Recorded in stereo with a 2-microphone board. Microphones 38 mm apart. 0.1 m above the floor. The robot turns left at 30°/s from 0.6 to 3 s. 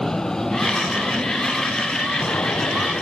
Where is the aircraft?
165° left; by 3.0 s 90° left.